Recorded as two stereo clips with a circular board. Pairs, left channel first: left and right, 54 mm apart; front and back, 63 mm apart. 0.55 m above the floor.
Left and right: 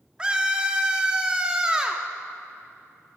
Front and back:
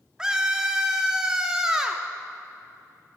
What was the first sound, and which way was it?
A scream, 125° right.